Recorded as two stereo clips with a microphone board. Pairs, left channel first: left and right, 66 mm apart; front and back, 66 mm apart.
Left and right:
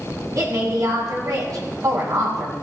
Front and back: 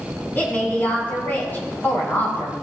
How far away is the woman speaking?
About 4 m.